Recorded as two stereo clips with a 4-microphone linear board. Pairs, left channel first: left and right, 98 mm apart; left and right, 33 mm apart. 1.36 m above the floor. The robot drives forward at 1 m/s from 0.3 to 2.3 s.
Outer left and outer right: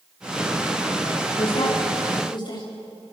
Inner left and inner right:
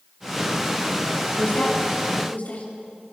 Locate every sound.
1.4 s a woman speaking: 65° left (ahead or behind), 3 m; by 2.7 s 50° left (ahead or behind), 3.5 m